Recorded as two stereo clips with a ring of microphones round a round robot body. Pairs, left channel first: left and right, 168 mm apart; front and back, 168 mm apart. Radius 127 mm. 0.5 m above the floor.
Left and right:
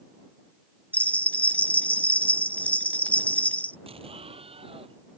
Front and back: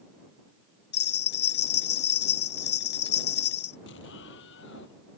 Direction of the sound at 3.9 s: 35° right.